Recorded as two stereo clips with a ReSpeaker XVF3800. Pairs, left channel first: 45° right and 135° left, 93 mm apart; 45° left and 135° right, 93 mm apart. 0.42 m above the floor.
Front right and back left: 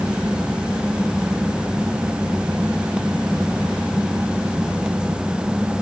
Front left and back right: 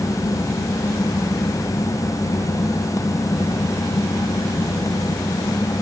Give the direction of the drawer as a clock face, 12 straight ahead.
No drawer in this recording.